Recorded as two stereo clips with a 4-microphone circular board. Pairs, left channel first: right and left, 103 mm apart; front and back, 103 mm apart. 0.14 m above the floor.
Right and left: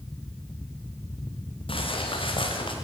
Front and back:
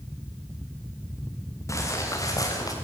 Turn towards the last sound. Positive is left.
turn(degrees=-55)